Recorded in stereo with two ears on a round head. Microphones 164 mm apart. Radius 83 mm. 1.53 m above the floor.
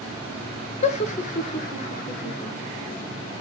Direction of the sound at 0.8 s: 40° left (ahead or behind).